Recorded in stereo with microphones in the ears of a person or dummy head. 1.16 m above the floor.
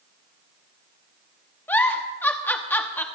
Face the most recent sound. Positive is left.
turn(degrees=10)  # may be behind; listen again after turning